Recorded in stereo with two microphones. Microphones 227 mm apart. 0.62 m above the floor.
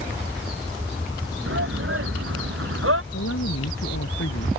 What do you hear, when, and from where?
1.5 s a shout: 65° right (ahead or behind); by 3.0 s 70° right (ahead or behind)
3.1 s a woman speaking: 85° left